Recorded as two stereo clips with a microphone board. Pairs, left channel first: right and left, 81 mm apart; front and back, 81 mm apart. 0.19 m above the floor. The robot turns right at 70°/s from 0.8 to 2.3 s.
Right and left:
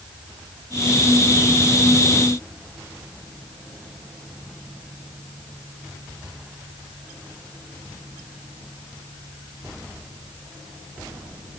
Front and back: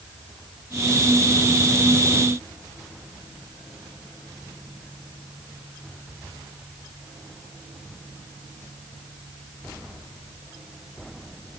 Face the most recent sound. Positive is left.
No sound to turn to.